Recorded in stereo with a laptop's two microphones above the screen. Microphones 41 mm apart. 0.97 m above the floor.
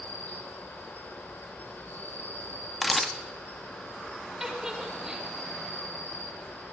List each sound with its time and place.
0.0 s an insect: 60° left (ahead or behind), 2.5 m
2.8 s a camera shutter: centre (ahead or behind), 0.9 m
4.4 s a giggle: 15° right (ahead or behind), 3.5 m